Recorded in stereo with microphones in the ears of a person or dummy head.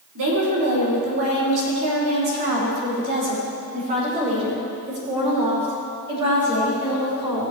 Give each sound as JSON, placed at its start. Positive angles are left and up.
{"t": 0.1, "sound": "a woman speaking", "side_deg": -70, "distance_m": 3.5}